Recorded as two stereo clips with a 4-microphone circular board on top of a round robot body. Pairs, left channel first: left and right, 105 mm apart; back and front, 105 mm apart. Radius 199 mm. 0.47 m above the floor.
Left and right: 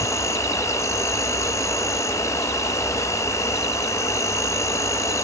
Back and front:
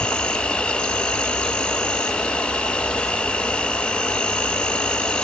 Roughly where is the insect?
Left.